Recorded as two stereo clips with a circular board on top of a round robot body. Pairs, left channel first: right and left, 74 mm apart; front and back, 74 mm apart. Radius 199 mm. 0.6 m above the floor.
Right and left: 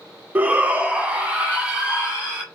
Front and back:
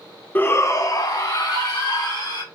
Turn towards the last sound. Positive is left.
turn(degrees=15)